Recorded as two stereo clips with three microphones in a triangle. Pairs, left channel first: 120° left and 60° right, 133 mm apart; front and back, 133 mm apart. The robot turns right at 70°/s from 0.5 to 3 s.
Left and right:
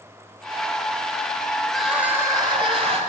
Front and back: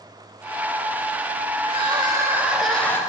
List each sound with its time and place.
1.6 s crying: 160° right, 1.4 m; by 3.0 s 65° right, 1.4 m